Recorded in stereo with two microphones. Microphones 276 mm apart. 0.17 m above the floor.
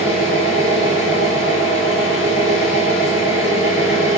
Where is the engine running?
45° right (ahead or behind), 1.1 m.